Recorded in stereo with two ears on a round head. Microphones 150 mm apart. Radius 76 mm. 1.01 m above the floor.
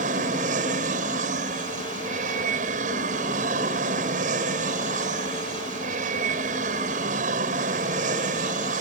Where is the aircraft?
45° right (ahead or behind).